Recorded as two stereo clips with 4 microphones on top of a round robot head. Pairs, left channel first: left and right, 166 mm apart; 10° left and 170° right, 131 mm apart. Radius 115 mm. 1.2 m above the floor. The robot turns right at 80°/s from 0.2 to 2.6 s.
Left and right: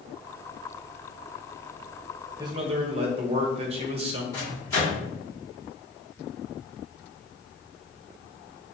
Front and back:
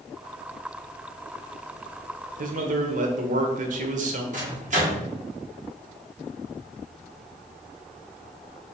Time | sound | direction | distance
2.4 | a man speaking | 165° right | 0.7 m
4.3 | a microwave | 160° left | 1.9 m